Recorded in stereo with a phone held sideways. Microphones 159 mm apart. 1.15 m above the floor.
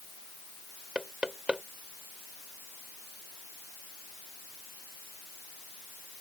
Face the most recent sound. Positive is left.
turn(degrees=-5)  # may be behind; listen again after turning